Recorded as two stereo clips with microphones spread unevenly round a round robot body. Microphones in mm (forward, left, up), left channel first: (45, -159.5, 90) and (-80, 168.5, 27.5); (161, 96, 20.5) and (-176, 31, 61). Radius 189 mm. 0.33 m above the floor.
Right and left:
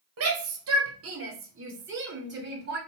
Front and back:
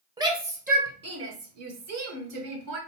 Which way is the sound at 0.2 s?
110° left.